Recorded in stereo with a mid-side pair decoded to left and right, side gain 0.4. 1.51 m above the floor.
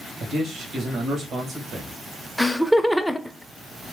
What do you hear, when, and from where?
0.2 s a man speaking: 65° right, 1.6 m
2.4 s laughter: straight ahead, 0.7 m